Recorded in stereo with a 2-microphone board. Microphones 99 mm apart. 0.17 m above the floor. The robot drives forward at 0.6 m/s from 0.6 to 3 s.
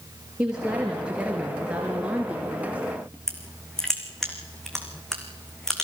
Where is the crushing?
5° left (ahead or behind), 3 m.